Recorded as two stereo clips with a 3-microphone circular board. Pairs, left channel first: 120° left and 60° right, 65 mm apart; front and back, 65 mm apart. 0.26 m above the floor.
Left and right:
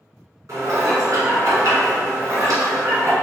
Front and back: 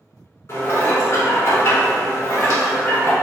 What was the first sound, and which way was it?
Dishes clattering, 40° right.